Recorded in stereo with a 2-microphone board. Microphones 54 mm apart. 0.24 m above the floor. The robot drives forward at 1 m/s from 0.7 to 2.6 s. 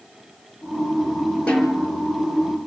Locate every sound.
1.5 s a snare drum: 20° left (ahead or behind), 3 m; by 1.9 s 25° left (ahead or behind), 3 m